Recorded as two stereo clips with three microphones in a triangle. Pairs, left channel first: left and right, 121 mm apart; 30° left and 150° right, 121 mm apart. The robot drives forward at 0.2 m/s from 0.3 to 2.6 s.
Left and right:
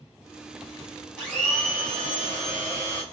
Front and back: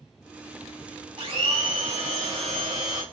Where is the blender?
170° left, 1.7 m.